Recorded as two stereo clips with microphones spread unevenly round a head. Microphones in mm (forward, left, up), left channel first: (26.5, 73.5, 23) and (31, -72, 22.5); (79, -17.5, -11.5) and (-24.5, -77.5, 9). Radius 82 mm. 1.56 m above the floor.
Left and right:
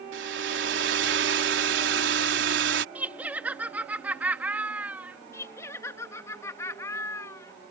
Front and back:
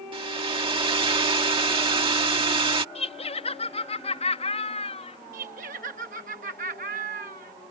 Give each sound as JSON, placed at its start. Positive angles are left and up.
{"t": 0.1, "sound": "a hair dryer", "azimuth_deg": -105}
{"t": 3.0, "sound": "laughter", "azimuth_deg": -10}
{"t": 5.3, "sound": "laughter", "azimuth_deg": 165}